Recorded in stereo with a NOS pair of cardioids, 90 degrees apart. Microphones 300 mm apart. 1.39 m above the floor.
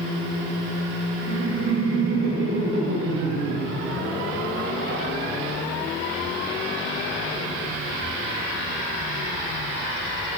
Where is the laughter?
50° right, 7.5 m.